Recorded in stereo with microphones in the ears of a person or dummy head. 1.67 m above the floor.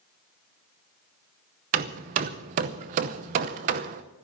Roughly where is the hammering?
Right.